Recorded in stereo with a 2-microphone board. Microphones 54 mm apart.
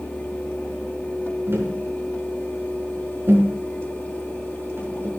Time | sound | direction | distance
1.5 | tapping | 55° right (ahead or behind) | 5.5 m